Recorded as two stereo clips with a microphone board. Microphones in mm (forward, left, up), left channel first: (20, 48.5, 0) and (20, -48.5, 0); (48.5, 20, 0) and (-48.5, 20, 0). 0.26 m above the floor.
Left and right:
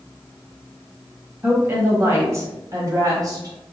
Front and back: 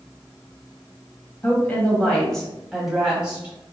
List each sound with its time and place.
1.4 s a woman speaking: 45° right, 1.4 m; by 3.5 s 110° right, 1.6 m